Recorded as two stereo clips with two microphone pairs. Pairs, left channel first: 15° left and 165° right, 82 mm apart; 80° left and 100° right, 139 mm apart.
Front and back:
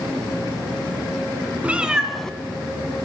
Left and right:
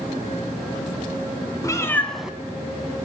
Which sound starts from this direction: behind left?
A cat meowing, at 1.6 s.